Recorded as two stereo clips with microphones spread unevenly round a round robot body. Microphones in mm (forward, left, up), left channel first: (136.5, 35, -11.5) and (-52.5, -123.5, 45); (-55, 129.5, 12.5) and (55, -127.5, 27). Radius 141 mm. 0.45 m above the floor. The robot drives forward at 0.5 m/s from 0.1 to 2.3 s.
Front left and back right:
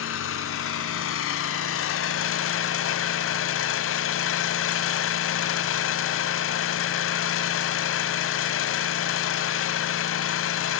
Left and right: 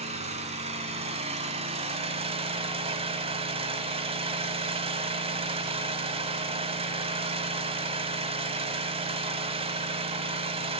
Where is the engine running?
5° left, 2.5 m.